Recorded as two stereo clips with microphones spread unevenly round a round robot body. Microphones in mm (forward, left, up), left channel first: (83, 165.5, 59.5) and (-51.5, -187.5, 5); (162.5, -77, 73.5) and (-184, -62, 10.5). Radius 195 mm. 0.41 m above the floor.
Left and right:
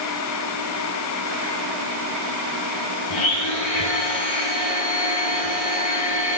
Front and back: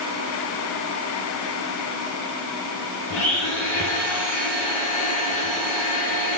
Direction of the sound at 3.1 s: 50° left.